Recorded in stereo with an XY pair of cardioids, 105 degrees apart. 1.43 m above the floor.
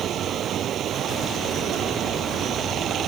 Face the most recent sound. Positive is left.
turn(degrees=-60)